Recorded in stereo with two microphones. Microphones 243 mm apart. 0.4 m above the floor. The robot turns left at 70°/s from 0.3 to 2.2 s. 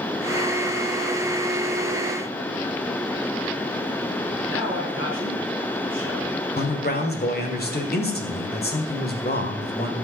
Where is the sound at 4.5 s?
55° left (ahead or behind), 4.5 m.